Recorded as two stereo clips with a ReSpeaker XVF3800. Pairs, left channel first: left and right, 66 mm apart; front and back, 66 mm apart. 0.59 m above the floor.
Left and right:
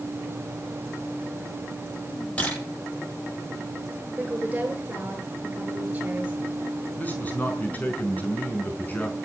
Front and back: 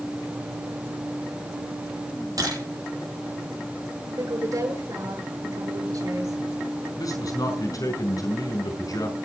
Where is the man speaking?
25° left, 5 m.